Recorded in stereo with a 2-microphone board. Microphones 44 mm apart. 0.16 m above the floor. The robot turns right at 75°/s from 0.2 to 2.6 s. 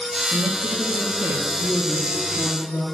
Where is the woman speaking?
80° right, 2.5 m; by 2.8 s 95° left, 2.5 m.